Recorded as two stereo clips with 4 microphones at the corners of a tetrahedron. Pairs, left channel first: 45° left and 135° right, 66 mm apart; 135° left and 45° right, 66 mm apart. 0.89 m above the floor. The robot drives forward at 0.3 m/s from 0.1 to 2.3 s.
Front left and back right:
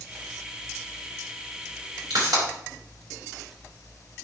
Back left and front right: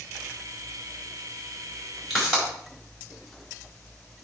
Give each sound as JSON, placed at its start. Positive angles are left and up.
{"t": 2.1, "sound": "a pop", "azimuth_deg": -135, "distance_m": 5.0}